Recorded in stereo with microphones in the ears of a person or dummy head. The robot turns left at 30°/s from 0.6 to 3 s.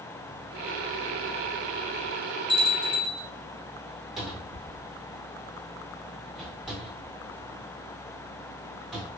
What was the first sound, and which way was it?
A bell, 40° left (ahead or behind).